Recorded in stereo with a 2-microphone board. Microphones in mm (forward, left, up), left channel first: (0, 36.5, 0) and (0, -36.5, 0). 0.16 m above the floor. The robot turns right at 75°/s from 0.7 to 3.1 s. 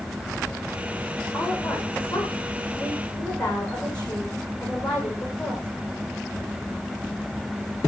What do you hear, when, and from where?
1.3 s a woman speaking: 35° left, 9 m; by 5.7 s 170° left, 9 m